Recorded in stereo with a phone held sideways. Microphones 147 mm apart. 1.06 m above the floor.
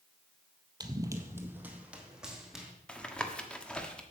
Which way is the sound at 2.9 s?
5° left (ahead or behind).